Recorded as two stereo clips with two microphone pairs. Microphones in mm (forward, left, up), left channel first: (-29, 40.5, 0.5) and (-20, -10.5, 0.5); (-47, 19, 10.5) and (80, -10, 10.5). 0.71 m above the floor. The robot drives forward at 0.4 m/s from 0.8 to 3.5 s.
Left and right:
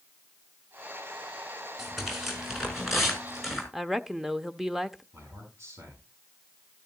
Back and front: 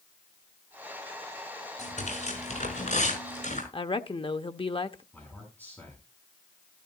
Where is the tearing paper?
165° right, 5.5 m; by 3.6 s 170° right, 6.5 m.